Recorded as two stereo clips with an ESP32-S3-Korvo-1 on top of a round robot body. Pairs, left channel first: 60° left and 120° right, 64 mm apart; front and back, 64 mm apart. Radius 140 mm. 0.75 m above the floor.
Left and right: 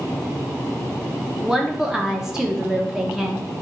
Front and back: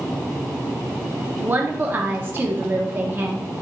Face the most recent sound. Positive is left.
turn(degrees=160)